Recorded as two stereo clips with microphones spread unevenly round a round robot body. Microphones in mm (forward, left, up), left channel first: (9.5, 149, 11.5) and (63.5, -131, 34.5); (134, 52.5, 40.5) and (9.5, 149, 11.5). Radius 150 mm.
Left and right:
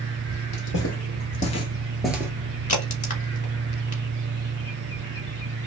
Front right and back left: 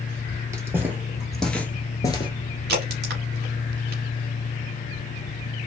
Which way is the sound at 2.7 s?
165° left.